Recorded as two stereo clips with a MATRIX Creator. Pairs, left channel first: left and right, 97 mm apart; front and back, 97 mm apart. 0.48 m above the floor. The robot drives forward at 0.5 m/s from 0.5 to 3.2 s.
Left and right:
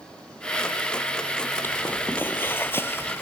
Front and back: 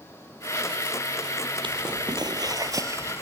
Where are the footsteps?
155° left; by 3.2 s 130° left.